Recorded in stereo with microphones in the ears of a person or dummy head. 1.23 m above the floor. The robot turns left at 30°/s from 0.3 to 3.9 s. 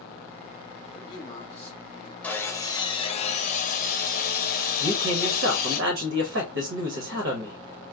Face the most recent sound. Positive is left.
turn(degrees=-90)